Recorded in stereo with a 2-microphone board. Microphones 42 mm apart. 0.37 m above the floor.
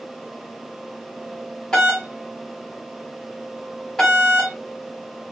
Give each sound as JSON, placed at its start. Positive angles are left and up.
{"t": 1.7, "sound": "a doorbell", "side_deg": 10, "distance_m": 1.6}